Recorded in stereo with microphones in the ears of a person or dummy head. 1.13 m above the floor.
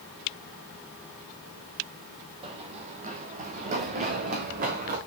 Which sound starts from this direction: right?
Running footsteps, at 2.4 s.